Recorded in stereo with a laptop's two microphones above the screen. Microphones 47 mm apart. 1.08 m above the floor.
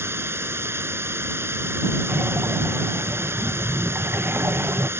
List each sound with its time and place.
0.0 s running water: 65° right (ahead or behind)
2.1 s breathing: 55° right (ahead or behind)